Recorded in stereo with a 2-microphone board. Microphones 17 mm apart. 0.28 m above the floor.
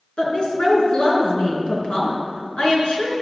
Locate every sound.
0.2 s a woman speaking: 70° left (ahead or behind), 3 m